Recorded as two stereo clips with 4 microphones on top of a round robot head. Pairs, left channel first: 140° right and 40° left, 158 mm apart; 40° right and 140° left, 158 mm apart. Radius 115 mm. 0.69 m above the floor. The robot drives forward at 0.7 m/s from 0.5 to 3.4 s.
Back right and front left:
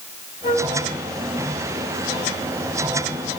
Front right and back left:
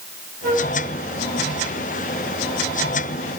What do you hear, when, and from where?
0.4 s a flute: 170° left, 3.5 m